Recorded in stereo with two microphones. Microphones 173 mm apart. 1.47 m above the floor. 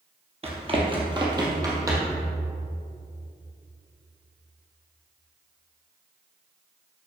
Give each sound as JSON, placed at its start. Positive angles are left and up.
{"t": 0.4, "sound": "running footsteps", "side_deg": -35, "distance_m": 1.7}